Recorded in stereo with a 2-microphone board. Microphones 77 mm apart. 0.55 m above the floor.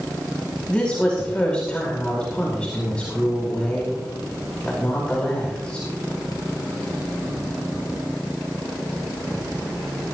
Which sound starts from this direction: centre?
A woman speaking, at 0.7 s.